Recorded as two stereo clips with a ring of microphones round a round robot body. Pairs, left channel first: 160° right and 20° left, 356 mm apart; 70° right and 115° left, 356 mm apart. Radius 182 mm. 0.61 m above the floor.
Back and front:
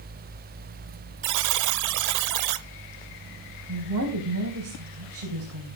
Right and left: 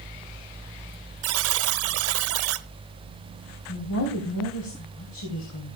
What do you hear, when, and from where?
1.2 s a buzzer: 60° left, 0.7 m
3.7 s a woman speaking: 25° right, 3.5 m